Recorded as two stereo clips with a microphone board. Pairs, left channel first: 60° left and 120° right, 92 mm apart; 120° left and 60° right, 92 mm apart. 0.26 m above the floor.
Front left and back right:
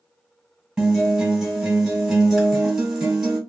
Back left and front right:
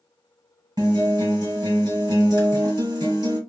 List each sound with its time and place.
0.8 s a guitar: 40° right, 1.3 m